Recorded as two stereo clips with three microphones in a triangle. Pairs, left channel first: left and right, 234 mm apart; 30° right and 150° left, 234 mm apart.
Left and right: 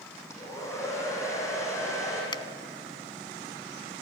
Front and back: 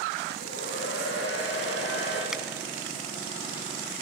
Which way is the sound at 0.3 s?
10° left.